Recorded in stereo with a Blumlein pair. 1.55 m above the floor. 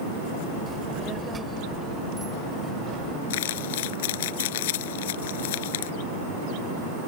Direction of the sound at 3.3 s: 55° left.